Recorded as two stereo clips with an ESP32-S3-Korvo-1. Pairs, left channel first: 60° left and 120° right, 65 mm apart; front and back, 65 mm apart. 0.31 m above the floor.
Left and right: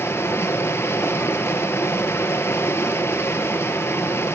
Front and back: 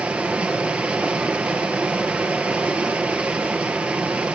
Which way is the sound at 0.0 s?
110° left.